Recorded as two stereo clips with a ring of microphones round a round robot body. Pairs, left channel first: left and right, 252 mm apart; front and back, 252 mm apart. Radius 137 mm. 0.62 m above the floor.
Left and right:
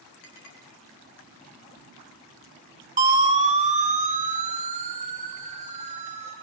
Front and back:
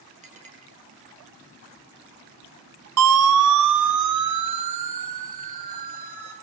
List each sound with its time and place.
0.2 s a clink: 115° left, 5 m
3.0 s a siren: 150° right, 2 m; by 6.3 s 155° right, 6.5 m